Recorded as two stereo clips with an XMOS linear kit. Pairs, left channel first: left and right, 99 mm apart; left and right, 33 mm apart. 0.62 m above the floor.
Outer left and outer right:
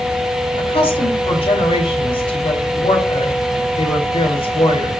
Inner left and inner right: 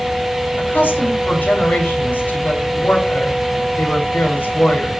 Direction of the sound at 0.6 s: 70° left (ahead or behind).